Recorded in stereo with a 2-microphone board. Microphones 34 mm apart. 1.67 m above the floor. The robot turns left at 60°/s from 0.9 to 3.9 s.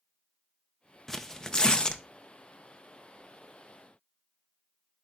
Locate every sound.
1.1 s tearing paper: 10° left (ahead or behind), 0.7 m; by 2.0 s 25° left (ahead or behind), 0.7 m